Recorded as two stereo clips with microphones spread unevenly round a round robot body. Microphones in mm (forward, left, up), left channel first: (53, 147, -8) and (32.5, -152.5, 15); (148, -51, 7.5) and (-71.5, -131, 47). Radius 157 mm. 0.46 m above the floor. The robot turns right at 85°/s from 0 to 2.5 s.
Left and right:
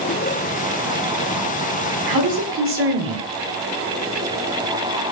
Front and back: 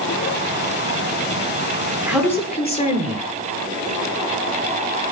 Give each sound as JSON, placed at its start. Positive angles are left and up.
{"t": 2.1, "sound": "a man speaking", "azimuth_deg": -80, "distance_m": 9.5}